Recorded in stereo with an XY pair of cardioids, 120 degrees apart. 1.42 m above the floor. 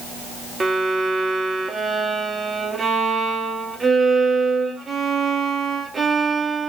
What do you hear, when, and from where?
0.6 s a violin: 25° right, 1.2 m